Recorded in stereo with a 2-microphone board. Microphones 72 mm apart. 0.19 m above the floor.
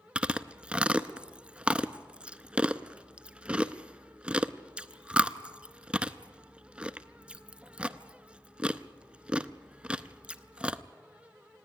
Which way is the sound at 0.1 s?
15° right (ahead or behind).